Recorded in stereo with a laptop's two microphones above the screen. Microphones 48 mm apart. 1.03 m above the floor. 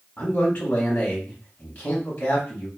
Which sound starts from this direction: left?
A man speaking, at 0.2 s.